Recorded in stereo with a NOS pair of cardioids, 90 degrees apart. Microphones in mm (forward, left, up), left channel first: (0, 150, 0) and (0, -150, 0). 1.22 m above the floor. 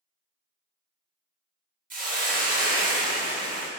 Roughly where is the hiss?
Ahead right.